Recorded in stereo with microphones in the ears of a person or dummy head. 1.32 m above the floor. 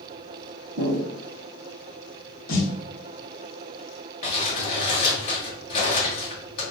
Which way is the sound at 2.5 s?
80° left.